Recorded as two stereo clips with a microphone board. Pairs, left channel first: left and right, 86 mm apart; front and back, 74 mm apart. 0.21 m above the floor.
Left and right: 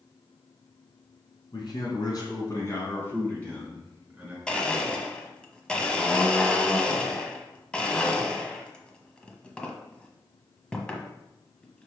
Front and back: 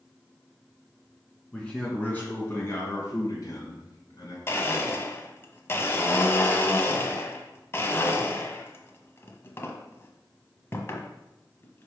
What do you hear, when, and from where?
1.5 s a man speaking: 75° left, 3 m; by 4.4 s 10° right, 3 m
4.5 s a blender: 20° left, 1.0 m